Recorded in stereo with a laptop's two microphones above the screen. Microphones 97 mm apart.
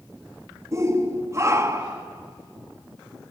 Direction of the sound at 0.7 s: 30° right (ahead or behind).